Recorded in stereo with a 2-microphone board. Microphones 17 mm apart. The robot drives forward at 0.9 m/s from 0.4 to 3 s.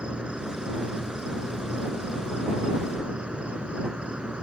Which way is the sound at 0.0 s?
70° right (ahead or behind).